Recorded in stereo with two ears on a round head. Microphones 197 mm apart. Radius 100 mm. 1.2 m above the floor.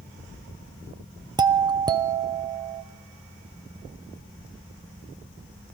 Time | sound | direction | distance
1.4 | a doorbell | 20° right (ahead or behind) | 0.5 m